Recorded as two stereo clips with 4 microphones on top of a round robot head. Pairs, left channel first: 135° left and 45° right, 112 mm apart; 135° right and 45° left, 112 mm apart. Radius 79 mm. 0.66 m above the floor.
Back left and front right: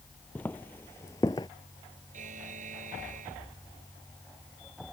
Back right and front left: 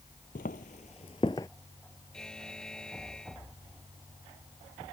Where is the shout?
No shout in this recording.